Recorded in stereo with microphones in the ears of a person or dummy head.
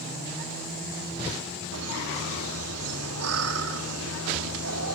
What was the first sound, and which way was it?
Laughter, 80° right.